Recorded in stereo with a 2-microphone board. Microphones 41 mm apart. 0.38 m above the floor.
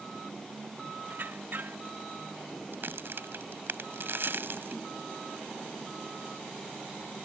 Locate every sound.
1.1 s a squeak: 50° right (ahead or behind)
2.7 s a crack: 60° right (ahead or behind)